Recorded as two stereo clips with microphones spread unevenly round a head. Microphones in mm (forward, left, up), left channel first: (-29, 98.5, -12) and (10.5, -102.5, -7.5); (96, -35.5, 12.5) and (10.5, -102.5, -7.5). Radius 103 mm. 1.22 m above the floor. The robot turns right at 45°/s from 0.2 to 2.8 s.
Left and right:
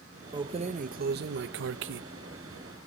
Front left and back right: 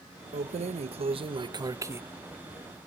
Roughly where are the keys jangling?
Behind right.